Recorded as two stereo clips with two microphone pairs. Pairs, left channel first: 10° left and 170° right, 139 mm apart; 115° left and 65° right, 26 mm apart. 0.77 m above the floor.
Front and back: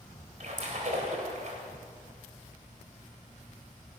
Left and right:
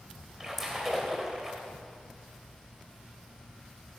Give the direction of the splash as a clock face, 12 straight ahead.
5 o'clock.